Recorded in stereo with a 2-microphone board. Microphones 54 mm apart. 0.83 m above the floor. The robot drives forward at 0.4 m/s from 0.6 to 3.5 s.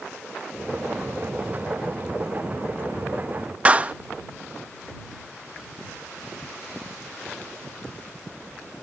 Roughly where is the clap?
Right.